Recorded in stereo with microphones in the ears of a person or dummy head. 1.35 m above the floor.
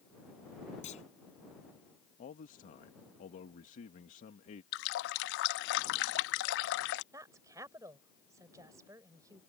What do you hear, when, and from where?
0.8 s a clunk: 40° left (ahead or behind)
2.2 s a man speaking: 45° left (ahead or behind)
4.7 s a running tap: 60° left (ahead or behind)
7.1 s a woman speaking: 20° right (ahead or behind)